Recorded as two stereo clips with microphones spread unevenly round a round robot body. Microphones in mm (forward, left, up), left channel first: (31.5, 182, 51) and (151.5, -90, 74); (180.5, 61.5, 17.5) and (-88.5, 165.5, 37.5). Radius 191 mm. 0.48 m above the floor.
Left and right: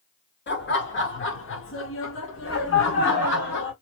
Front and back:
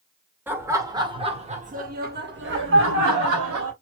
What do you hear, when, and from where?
0.5 s laughter: 75° left, 1.7 m; by 3.7 s 150° left, 1.6 m